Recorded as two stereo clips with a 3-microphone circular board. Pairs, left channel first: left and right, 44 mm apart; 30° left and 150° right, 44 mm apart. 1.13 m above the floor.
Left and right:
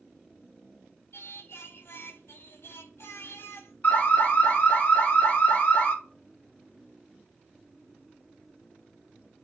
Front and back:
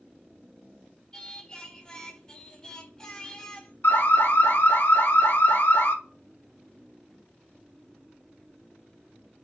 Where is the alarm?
45° left, 2.5 m.